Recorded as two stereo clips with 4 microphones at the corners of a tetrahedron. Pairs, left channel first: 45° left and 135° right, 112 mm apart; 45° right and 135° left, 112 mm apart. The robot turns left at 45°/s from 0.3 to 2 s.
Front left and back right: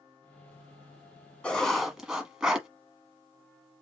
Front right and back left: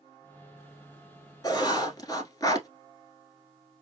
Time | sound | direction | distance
1.4 | writing | 30° right | 1.3 m